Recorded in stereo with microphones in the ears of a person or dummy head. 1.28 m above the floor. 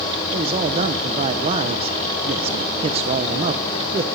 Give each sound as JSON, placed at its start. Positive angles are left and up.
{"t": 0.3, "sound": "a man speaking", "side_deg": -35, "distance_m": 1.0}